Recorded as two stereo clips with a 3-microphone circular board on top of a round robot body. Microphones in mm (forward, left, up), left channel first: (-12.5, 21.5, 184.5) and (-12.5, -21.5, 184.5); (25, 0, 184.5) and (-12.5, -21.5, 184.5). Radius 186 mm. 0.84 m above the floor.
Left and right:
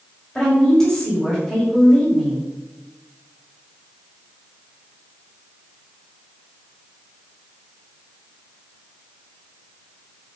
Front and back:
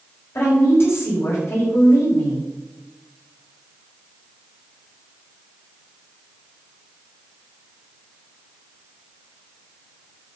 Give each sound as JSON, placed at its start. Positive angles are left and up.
{"t": 0.3, "sound": "a woman speaking", "azimuth_deg": 10, "distance_m": 5.0}